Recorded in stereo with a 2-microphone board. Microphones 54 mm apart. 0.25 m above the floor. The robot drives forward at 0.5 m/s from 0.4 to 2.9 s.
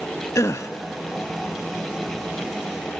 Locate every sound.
0.3 s a gasp: 70° left (ahead or behind), 0.6 m; by 0.7 s 80° left, 0.6 m